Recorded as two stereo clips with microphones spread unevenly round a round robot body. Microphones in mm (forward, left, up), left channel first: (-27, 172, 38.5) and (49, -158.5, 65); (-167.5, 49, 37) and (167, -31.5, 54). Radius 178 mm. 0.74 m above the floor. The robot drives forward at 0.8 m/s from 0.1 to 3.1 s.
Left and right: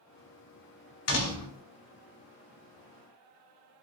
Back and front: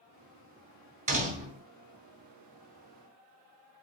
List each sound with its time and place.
1.1 s a door slam: 55° left, 4 m; by 1.6 s 60° left, 4 m